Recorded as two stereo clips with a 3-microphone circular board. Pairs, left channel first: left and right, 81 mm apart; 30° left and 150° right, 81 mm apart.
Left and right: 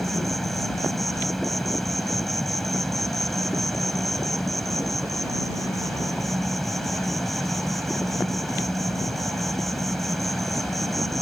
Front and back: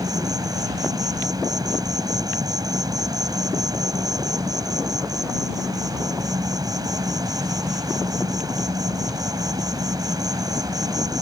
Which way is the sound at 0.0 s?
Straight behind.